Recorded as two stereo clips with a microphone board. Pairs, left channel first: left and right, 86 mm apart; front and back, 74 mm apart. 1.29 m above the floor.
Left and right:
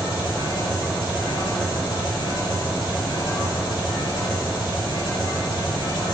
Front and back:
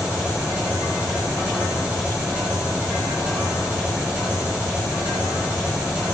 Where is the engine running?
110° left, 5 m.